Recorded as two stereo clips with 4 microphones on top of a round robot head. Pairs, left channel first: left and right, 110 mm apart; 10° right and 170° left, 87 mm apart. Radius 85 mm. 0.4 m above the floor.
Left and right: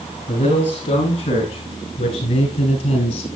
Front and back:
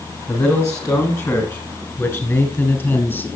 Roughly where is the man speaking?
Ahead left.